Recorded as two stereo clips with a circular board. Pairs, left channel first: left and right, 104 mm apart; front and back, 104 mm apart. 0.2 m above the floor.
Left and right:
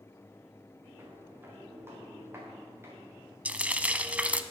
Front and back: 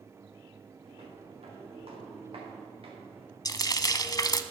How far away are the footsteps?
About 5.5 m.